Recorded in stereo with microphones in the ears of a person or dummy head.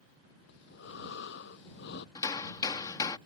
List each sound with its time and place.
0.5 s breathing: 55° left (ahead or behind)
2.1 s hammering: 15° left (ahead or behind)